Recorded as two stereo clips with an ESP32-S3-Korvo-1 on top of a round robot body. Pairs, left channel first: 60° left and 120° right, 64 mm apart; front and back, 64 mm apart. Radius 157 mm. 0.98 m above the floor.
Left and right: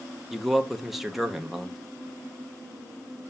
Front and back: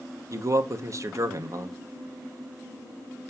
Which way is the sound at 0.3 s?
150° left.